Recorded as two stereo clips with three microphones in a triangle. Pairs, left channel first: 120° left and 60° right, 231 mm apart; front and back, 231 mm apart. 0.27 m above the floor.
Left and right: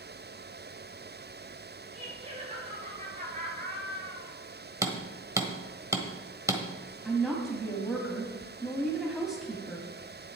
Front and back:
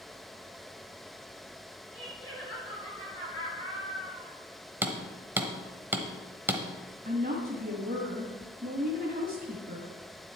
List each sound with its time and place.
1.9 s laughter: 5° left, 5.5 m; by 4.3 s 15° right, 6 m
4.8 s hammering: 115° right, 1.1 m
7.0 s a woman speaking: 150° right, 1.7 m